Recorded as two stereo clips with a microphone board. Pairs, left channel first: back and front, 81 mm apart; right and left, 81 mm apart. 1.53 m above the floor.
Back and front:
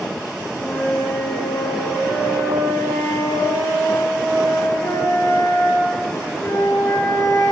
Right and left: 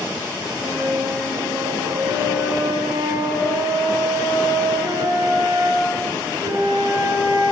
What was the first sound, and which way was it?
A flute, 125° left.